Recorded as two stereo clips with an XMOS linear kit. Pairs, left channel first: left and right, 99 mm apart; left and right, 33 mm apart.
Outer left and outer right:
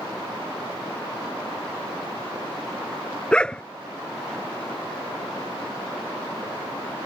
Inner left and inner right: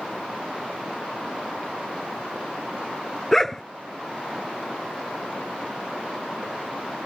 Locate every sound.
3.3 s a dog barking: 10° left (ahead or behind)